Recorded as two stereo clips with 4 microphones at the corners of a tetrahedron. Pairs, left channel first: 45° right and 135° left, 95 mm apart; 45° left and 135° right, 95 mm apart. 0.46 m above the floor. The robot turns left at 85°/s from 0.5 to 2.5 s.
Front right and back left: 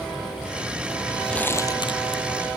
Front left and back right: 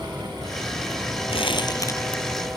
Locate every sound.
1.3 s crumpling: 40° left; by 2.2 s 40° right